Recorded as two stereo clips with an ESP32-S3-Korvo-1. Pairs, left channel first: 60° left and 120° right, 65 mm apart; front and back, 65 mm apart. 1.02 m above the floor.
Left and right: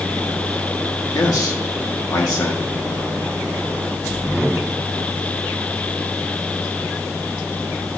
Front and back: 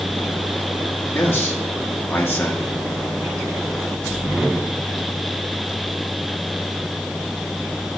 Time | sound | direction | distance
1.1 | a man speaking | 50° left | 1.7 m